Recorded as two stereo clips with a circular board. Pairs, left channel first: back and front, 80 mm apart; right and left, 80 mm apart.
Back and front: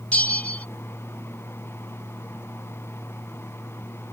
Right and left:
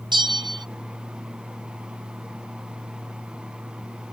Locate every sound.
0.1 s a bell: 105° left